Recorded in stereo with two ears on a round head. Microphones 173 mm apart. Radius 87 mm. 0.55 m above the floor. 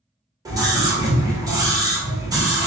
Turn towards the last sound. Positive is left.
turn(degrees=-20)  # may be behind; listen again after turning